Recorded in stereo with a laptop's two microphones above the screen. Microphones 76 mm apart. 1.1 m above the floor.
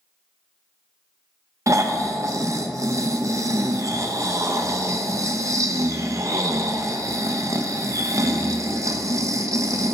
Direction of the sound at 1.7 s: 40° right (ahead or behind).